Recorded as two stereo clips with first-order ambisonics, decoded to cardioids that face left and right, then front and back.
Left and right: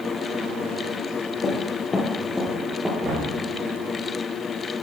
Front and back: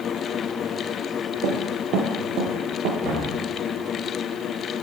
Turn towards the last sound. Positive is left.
turn(degrees=-145)